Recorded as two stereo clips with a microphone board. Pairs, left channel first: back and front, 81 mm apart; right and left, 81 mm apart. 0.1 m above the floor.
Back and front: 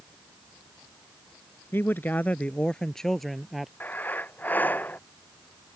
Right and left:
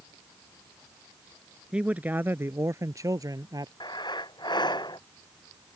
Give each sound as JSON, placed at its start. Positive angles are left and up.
{"t": 1.7, "sound": "a man speaking", "azimuth_deg": 155}
{"t": 3.8, "sound": "breathing", "azimuth_deg": -110}